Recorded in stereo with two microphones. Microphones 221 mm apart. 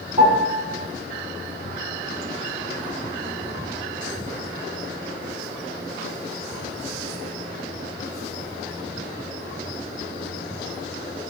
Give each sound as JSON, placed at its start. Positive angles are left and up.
{"t": 0.2, "sound": "a piano", "side_deg": -35, "distance_m": 5.5}